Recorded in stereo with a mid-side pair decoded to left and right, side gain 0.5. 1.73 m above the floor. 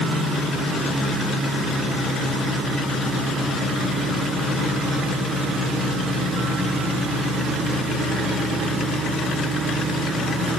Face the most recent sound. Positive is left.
No sound to turn to.